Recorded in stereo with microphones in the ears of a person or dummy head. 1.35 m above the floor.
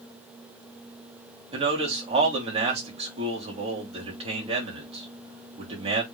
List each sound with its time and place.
1.5 s a man speaking: 35° right (ahead or behind), 3 m